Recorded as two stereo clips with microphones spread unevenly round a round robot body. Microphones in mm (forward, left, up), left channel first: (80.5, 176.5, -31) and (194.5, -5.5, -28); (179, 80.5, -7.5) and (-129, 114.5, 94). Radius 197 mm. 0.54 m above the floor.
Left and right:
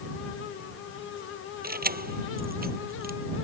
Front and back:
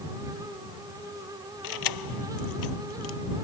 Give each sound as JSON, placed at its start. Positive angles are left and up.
{"t": 1.6, "sound": "keys jangling", "azimuth_deg": -15}